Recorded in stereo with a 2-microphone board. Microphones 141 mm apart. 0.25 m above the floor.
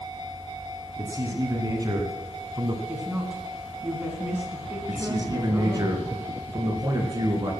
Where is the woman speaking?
10° right (ahead or behind), 2.5 m.